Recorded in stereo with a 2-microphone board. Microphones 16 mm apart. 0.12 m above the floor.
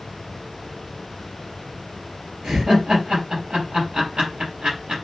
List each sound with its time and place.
2.4 s laughter: 55° right (ahead or behind), 3 m